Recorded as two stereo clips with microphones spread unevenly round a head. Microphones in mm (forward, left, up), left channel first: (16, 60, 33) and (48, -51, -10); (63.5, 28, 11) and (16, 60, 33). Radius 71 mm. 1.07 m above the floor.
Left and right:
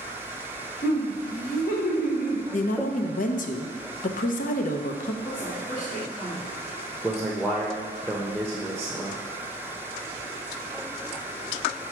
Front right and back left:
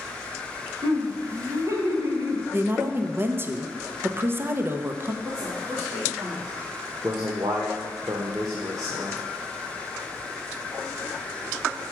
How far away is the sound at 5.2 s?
About 1.9 m.